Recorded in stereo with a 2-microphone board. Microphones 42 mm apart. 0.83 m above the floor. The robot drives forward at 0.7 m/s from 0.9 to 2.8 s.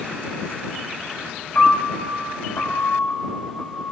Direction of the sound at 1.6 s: 50° left (ahead or behind).